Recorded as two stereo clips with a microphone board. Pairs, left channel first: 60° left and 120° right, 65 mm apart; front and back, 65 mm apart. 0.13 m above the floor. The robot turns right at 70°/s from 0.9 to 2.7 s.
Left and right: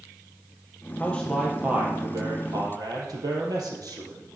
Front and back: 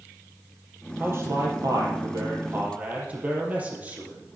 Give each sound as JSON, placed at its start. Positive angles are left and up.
{"t": 1.0, "sound": "a man speaking", "azimuth_deg": 125, "distance_m": 4.5}